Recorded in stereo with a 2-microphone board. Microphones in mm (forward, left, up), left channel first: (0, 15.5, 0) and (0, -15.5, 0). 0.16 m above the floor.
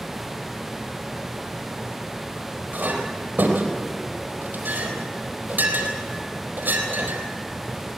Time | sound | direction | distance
2.7 | a clink | 75° right (ahead or behind) | 4 m